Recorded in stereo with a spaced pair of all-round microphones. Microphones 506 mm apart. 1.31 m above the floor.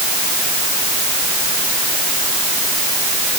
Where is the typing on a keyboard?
I don't hear typing on a keyboard.